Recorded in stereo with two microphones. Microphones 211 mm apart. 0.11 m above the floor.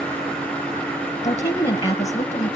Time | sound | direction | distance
1.2 | a woman speaking | 30° left (ahead or behind) | 1.8 m